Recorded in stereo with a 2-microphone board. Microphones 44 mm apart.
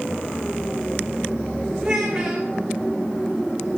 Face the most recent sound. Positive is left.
turn(degrees=-10)  # may be behind; listen again after turning